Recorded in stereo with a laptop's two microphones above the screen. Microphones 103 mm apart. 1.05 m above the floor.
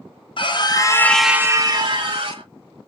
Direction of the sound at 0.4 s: 55° left (ahead or behind).